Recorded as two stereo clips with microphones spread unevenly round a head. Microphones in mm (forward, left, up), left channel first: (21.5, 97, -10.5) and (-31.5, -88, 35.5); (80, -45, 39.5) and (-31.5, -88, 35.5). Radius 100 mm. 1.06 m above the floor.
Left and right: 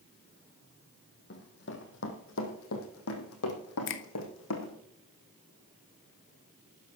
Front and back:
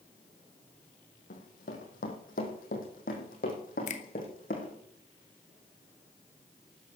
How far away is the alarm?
I don't hear an alarm.